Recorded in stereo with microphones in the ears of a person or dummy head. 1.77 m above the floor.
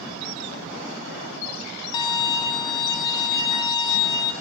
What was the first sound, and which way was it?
A violin, 30° left (ahead or behind).